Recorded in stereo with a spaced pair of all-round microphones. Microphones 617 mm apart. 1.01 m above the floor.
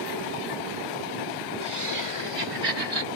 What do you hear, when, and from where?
1.6 s laughter: 50° right (ahead or behind); by 3.1 s 65° right (ahead or behind)